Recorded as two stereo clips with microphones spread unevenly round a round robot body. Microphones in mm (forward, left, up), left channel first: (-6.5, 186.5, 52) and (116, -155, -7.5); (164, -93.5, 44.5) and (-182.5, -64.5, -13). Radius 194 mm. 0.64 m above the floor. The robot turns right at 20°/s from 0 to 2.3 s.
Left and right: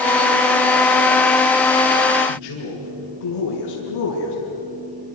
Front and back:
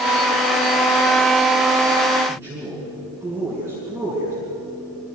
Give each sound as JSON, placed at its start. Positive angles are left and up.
{"t": 2.3, "sound": "a man speaking", "azimuth_deg": 90, "distance_m": 6.0}